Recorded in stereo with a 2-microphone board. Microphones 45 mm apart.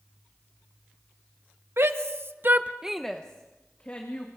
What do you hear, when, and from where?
1.8 s a shout: 70° right (ahead or behind), 1.5 m; by 4.3 s 40° left (ahead or behind), 2.5 m